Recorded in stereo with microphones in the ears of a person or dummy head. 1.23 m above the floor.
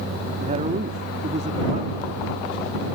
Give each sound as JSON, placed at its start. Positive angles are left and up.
{"t": 0.4, "sound": "a man speaking", "side_deg": -40}